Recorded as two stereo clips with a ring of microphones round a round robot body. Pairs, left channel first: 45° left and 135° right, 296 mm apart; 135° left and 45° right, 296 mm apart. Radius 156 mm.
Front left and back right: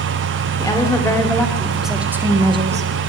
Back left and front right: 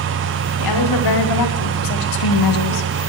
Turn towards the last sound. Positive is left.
turn(degrees=160)